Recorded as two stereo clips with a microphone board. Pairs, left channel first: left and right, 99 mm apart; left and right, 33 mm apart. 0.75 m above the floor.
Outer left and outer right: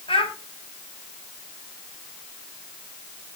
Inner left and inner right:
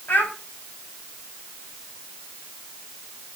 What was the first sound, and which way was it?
A child speaking, 65° left (ahead or behind).